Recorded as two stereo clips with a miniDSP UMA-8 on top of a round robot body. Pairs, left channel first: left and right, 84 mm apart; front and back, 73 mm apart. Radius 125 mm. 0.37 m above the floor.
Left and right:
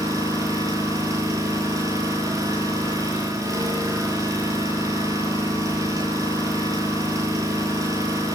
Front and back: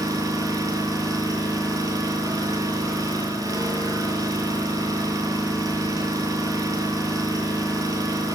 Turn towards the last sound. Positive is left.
turn(degrees=-145)